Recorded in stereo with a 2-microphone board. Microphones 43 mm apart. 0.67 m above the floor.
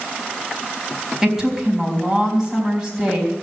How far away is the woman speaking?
About 4.5 m.